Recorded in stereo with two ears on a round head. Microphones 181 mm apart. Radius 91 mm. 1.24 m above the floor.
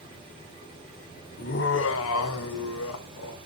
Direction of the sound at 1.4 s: 45° left (ahead or behind).